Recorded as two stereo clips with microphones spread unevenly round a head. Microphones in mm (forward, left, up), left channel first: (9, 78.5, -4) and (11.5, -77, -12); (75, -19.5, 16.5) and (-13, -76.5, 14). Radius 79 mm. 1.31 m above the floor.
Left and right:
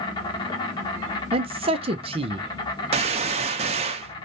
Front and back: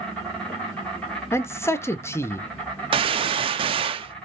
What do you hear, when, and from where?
0.0 s an insect: 105° left, 0.9 m
1.3 s a man speaking: 35° right, 0.7 m
2.9 s a gunshot: 130° right, 0.5 m